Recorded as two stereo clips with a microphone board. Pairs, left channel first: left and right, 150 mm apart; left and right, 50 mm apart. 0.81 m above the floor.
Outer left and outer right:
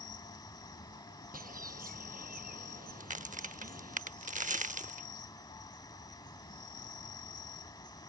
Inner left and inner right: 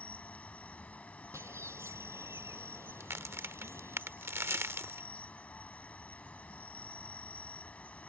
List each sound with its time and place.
0.0 s an insect: 30° left (ahead or behind)
1.3 s a bird: 70° right (ahead or behind)
3.0 s a crack: 60° right (ahead or behind)